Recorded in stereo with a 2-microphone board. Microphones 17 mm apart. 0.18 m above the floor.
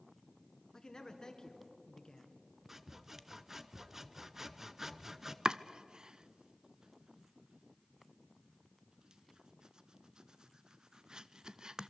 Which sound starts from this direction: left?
A man speaking, at 0.7 s.